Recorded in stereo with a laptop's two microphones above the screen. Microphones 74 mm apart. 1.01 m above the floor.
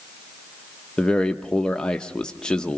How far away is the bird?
No bird in this recording.